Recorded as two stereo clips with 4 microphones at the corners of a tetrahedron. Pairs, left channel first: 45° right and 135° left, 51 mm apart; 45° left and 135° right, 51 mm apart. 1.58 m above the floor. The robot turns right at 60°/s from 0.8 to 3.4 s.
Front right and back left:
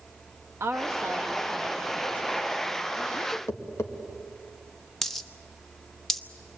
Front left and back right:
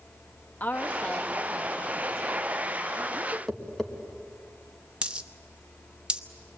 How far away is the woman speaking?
About 1.2 m.